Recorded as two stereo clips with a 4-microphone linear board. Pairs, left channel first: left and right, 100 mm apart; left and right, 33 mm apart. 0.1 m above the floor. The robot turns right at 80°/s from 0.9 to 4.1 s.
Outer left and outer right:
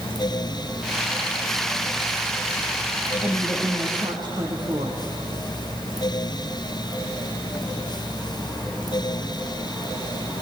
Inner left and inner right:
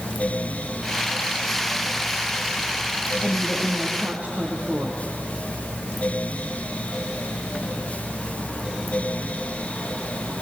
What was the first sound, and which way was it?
A woman speaking, 160° left.